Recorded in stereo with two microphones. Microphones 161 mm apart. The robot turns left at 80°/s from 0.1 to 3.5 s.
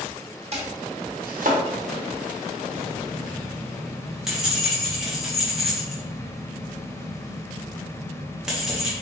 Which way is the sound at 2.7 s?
60° left.